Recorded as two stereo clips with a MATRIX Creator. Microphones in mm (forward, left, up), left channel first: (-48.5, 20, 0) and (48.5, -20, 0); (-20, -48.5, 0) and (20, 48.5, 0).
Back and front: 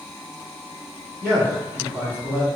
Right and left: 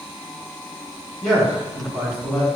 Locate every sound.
1.2 s a man speaking: 25° right, 1.1 m